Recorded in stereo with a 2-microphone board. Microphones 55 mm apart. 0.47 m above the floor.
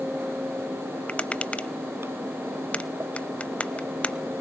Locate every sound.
1.1 s tapping: 25° left (ahead or behind), 0.6 m